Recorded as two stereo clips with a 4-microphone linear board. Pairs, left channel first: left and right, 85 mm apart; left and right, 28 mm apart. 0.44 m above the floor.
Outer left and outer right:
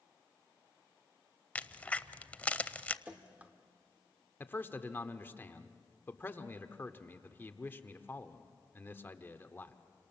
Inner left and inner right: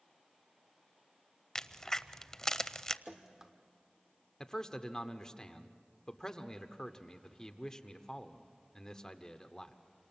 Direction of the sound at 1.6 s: 15° left (ahead or behind).